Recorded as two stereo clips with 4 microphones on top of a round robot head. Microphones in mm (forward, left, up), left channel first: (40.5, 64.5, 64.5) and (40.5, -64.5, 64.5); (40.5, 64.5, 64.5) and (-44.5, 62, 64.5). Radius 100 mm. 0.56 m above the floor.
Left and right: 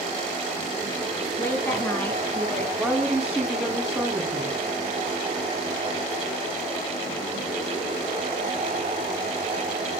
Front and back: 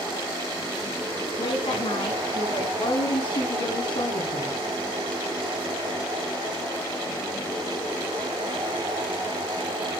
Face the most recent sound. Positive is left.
turn(degrees=-5)